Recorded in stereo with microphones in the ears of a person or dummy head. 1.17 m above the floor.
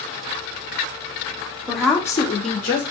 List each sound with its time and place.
1.7 s a woman speaking: 5° right (ahead or behind), 0.8 m; by 2.8 s 40° left (ahead or behind), 0.8 m